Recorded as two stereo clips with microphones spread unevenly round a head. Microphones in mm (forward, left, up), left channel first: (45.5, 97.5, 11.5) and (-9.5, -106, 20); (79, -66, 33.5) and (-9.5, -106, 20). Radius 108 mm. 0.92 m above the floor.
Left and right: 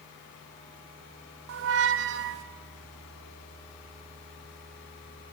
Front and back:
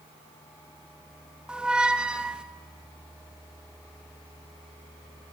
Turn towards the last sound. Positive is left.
turn(degrees=-75)